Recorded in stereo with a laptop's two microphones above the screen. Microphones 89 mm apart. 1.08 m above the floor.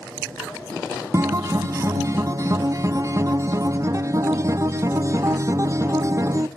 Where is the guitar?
40° right (ahead or behind), 0.5 m.